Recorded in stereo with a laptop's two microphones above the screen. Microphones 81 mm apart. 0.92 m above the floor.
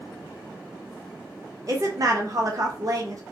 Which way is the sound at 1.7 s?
45° right (ahead or behind).